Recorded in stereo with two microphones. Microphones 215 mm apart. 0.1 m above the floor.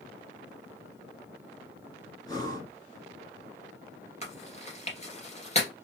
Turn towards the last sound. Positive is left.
turn(degrees=30)  # may be behind; listen again after turning